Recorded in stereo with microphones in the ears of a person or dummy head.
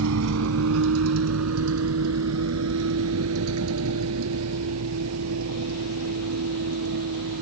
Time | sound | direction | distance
0.0 | a vehicle | 70° right (ahead or behind) | ?